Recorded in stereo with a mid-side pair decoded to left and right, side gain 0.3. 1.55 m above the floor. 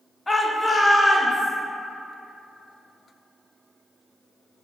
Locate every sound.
0.3 s a shout: 20° left, 0.7 m; by 1.5 s 35° left, 2.5 m